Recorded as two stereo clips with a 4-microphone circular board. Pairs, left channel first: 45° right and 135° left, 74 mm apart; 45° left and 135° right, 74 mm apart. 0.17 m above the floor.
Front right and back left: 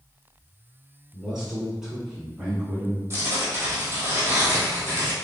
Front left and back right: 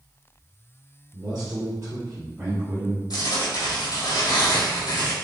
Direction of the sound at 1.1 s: 135° right.